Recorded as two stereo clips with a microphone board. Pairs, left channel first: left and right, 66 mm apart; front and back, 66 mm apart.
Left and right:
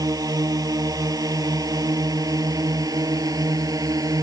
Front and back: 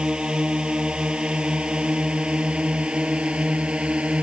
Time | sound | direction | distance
0.0 | a drone | 105° right | ?